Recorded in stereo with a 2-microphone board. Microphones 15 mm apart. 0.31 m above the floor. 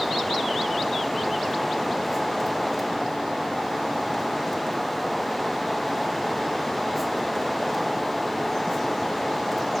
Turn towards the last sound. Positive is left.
No sound to turn to.